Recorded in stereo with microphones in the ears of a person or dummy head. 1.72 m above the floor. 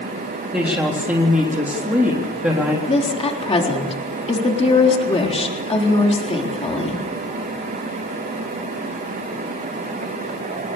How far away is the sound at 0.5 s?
About 3.5 m.